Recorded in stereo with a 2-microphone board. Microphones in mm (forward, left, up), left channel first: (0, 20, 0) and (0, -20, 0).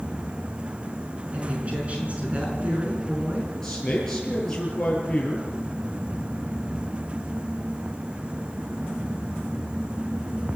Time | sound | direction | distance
1.3 | a woman speaking | 35° right (ahead or behind) | 5 m
3.6 | a man speaking | 15° left (ahead or behind) | 9 m